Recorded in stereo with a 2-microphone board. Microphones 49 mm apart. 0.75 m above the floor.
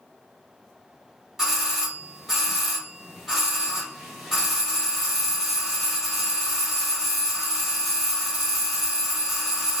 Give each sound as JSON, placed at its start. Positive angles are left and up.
{"t": 1.4, "sound": "a doorbell", "side_deg": -10, "distance_m": 1.4}